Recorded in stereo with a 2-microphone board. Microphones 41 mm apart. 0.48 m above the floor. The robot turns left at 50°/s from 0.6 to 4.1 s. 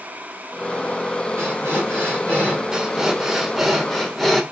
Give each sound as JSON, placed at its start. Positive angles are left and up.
{"t": 1.4, "sound": "breathing", "azimuth_deg": -80, "distance_m": 2.0}
{"t": 2.7, "sound": "breathing", "side_deg": -15, "distance_m": 0.5}